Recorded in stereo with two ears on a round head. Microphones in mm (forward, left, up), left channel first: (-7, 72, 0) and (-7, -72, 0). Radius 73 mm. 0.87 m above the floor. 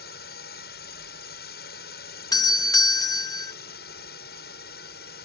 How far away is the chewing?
No chewing in this recording.